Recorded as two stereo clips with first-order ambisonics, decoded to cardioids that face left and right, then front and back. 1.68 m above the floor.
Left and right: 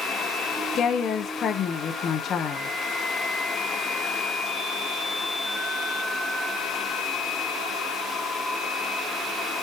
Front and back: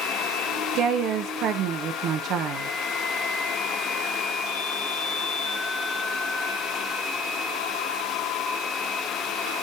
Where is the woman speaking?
145° left, 0.7 m.